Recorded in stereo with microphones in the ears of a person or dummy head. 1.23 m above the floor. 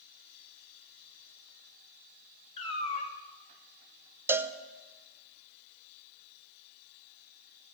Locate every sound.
2.6 s a cat meowing: 35° left (ahead or behind), 1.5 m
4.3 s a cowbell: 10° right (ahead or behind), 0.6 m